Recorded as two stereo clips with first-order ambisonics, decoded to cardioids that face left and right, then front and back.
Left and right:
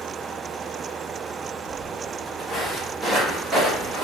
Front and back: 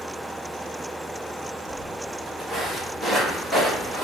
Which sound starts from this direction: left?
Footsteps, at 1.7 s.